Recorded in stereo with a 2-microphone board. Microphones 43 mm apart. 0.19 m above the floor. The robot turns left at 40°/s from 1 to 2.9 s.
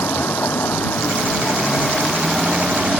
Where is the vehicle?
60° left; by 3.0 s 20° right.